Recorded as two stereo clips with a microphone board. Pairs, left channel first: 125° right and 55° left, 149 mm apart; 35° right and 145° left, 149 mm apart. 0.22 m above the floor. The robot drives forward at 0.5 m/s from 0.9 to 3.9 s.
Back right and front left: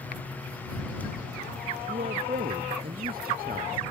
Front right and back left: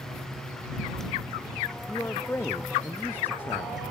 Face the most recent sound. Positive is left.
turn(degrees=45)